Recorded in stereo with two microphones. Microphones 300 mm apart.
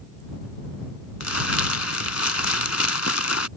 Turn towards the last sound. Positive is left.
turn(degrees=60)  # may be behind; listen again after turning